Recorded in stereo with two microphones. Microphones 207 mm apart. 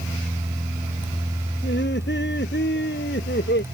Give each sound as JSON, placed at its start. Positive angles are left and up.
{"t": 1.6, "sound": "laughter", "side_deg": 60}